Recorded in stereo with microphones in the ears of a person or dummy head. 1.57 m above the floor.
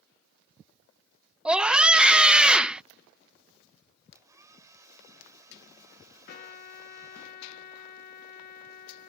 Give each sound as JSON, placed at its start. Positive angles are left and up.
{"t": 1.4, "sound": "a scream", "side_deg": -10}
{"t": 4.2, "sound": "a hair dryer", "side_deg": -20}
{"t": 6.3, "sound": "a trumpet", "side_deg": 50}